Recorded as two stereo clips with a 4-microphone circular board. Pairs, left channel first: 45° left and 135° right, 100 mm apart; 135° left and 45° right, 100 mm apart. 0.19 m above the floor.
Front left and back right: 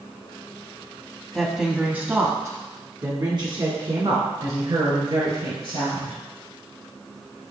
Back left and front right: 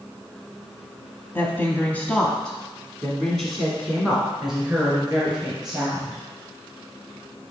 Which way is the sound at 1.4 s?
135° left.